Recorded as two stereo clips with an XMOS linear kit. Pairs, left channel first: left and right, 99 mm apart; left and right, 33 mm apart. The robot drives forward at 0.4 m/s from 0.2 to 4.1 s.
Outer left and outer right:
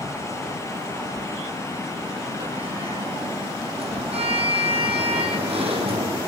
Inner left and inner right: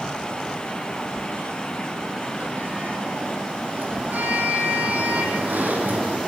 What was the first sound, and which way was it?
A sliding door, 70° right (ahead or behind).